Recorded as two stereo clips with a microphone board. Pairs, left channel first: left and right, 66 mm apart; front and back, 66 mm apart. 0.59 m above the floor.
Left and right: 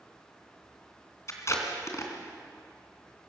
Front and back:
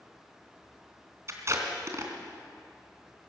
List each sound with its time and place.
1.3 s tape being pulled: 135° left, 2.5 m